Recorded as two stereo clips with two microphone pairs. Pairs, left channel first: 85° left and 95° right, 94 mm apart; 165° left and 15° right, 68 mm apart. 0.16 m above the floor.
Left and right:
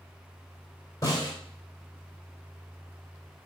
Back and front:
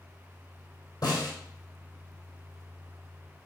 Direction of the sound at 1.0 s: 140° left.